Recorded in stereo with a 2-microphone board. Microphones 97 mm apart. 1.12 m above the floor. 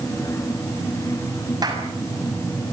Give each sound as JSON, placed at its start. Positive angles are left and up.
{"t": 1.6, "sound": "a clap", "side_deg": -40, "distance_m": 6.5}